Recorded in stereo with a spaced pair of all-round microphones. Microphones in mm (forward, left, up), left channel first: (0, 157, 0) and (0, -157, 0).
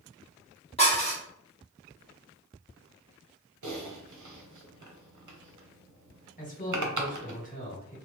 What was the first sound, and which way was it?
Dishes clattering, 20° left (ahead or behind).